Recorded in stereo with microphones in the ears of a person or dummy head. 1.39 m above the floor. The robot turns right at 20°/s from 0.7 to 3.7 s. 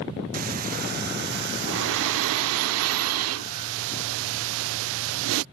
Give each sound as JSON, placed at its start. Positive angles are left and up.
{"t": 0.3, "sound": "breathing", "azimuth_deg": -135}